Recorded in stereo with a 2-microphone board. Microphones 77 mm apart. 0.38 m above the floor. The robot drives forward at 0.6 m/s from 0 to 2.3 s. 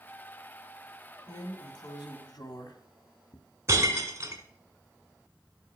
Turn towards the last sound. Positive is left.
turn(degrees=-40)  # may be behind; listen again after turning